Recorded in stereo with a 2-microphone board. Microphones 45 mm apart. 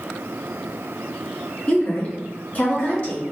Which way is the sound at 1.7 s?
35° left (ahead or behind).